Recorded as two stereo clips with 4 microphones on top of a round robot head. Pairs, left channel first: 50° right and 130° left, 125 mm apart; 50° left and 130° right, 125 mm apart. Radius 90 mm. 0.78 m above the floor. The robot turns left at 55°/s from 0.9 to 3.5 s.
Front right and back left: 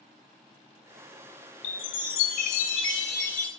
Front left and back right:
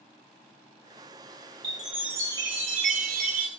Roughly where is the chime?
Ahead right.